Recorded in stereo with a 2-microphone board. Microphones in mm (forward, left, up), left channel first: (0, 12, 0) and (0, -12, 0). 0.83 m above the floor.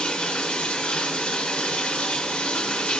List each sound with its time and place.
0.0 s running water: 55° left (ahead or behind), 1.1 m